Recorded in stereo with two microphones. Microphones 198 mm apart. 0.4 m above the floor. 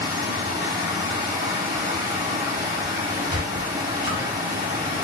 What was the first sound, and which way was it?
Running water, 45° right (ahead or behind).